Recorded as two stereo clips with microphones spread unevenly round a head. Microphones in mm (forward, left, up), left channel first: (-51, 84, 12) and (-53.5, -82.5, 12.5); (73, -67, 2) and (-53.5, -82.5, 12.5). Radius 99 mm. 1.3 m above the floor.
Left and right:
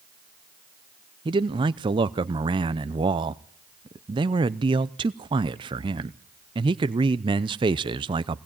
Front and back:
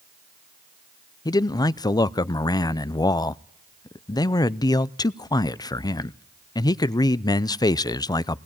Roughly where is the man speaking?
Ahead right.